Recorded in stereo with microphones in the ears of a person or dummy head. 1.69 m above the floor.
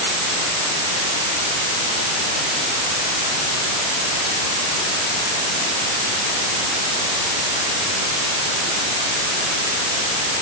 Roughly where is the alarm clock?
I don't hear an alarm clock.